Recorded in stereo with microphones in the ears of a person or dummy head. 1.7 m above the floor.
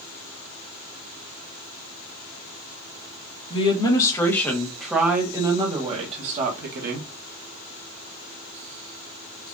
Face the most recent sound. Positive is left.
turn(degrees=-55)  # may be behind; listen again after turning